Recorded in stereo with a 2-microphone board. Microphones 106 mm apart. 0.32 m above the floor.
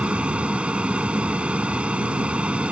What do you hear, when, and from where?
0.0 s an aircraft: 10° right (ahead or behind)